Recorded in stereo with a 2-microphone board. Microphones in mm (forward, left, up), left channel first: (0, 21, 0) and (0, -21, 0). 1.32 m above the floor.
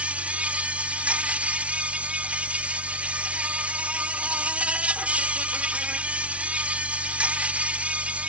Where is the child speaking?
No child speaking in this recording.